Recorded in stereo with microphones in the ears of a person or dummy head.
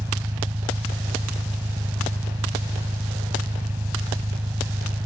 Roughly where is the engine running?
Centre.